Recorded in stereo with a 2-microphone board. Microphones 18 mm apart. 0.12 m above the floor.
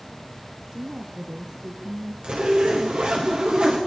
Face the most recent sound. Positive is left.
turn(degrees=-65)  # may be behind; listen again after turning